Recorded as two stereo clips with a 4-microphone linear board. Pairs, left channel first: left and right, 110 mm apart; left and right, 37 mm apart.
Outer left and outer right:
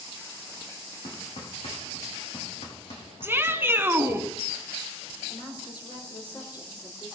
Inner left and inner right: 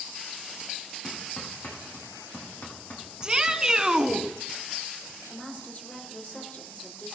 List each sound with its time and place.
1.0 s hammering: 75° left (ahead or behind), 5.5 m
3.2 s a shout: 20° right (ahead or behind), 1.2 m
5.3 s a woman speaking: 45° left (ahead or behind), 5 m